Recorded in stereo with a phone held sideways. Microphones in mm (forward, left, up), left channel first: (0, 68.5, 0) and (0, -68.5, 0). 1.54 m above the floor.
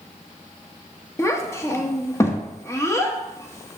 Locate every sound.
1.2 s a child speaking: 20° left (ahead or behind), 0.9 m